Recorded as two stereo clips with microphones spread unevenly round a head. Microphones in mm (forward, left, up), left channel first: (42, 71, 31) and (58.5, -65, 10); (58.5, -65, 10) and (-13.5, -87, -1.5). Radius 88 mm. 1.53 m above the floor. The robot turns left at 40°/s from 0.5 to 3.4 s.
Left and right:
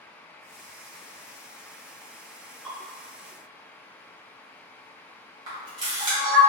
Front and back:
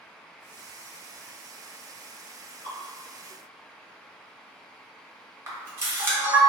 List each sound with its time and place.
2.6 s dripping: 175° right, 1.4 m; by 2.8 s straight behind, 1.4 m
5.5 s a camera shutter: 125° right, 0.7 m